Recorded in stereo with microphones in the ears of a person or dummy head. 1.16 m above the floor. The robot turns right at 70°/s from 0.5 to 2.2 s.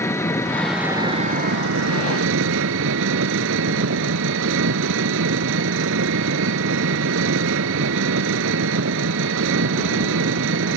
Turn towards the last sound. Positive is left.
turn(degrees=-70)